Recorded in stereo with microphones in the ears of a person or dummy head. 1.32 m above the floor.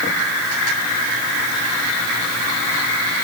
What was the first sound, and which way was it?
Only background noise.